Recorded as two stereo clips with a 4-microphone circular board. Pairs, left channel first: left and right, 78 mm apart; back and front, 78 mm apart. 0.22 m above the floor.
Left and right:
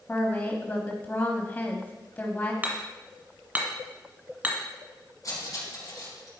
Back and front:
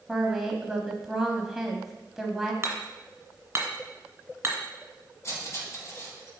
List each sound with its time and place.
0.1 s a woman speaking: 80° left, 1.0 m
2.6 s hammering: 40° right, 1.6 m
5.2 s cutlery clinking: 130° left, 3 m